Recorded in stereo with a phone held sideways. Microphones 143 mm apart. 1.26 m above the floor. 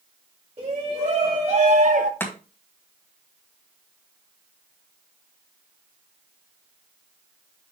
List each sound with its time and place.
0.6 s a shout: 40° right (ahead or behind), 2 m; by 2.1 s 65° right (ahead or behind), 0.9 m
2.2 s chopping: 15° left (ahead or behind), 2 m